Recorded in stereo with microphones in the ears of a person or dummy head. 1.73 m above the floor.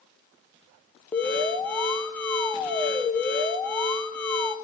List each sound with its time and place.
1.1 s an alarm: 10° left (ahead or behind), 1.0 m